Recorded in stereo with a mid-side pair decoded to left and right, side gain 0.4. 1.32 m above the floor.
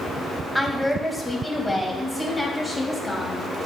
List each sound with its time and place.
0.6 s a woman speaking: 5° left, 1.7 m; by 3.5 s 25° left, 3 m